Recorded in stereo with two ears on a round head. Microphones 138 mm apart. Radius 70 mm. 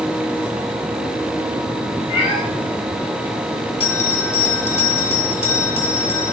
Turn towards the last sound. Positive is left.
turn(degrees=40)  # may be behind; listen again after turning